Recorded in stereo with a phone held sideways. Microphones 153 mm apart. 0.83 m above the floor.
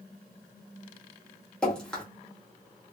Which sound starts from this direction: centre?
Dripping, at 1.6 s.